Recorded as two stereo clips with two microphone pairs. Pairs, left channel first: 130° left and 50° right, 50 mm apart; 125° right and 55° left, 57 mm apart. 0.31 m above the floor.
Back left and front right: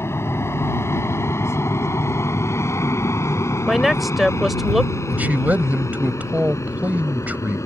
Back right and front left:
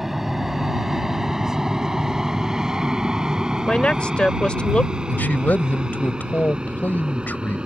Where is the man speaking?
85° right.